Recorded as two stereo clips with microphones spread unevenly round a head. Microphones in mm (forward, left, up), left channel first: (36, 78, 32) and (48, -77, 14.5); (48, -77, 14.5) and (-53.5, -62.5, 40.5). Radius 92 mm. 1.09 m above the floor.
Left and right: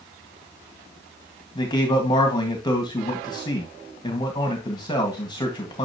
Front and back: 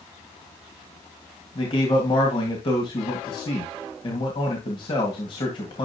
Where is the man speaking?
30° left, 1.8 m.